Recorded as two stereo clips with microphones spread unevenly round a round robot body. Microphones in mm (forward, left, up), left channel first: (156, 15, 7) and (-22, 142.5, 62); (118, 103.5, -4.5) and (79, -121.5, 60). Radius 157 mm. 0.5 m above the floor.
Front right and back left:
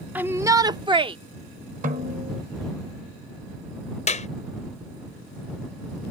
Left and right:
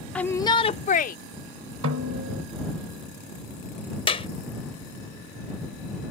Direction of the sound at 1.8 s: 150° right.